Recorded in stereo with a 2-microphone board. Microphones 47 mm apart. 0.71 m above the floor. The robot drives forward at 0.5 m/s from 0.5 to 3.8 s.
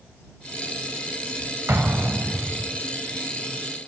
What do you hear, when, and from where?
1.7 s an explosion: 60° right (ahead or behind), 4 m; by 2.7 s 55° right (ahead or behind), 4 m